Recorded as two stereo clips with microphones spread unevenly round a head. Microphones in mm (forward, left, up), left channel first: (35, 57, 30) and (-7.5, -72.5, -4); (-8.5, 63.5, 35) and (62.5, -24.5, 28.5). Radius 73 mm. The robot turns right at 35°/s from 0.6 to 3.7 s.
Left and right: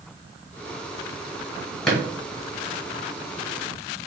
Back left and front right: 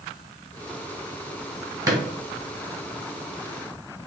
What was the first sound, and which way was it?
A drawer, straight ahead.